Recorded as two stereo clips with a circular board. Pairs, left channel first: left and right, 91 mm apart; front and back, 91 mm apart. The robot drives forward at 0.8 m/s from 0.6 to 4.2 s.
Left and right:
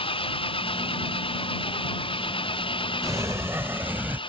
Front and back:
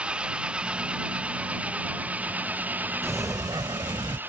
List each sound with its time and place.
0.0 s an engine running: 100° left; by 4.3 s 110° left
3.0 s a sliding door: 130° right; by 4.2 s 160° right